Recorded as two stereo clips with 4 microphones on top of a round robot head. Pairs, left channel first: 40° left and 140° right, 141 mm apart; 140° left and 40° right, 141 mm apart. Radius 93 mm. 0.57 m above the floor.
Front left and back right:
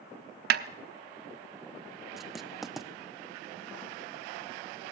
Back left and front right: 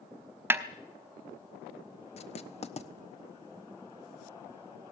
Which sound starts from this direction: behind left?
Writing, at 2.2 s.